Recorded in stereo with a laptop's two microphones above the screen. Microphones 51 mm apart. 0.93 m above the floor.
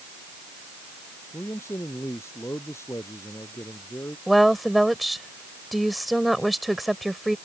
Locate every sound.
1.3 s a man speaking: 65° left (ahead or behind)
4.3 s a woman speaking: centre (ahead or behind)